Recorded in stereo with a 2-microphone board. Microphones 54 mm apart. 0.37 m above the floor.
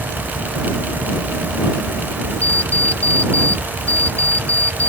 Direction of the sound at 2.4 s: 30° left (ahead or behind).